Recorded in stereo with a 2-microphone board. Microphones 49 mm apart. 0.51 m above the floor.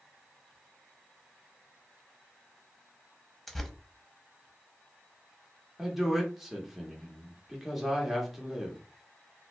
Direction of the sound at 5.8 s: 5° right (ahead or behind).